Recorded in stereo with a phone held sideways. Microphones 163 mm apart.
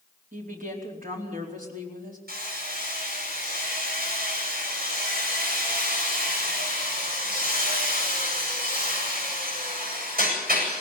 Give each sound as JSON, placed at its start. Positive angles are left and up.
{"t": 0.3, "sound": "a woman speaking", "side_deg": -60, "distance_m": 4.5}
{"t": 2.3, "sound": "hammering", "side_deg": -75, "distance_m": 8.5}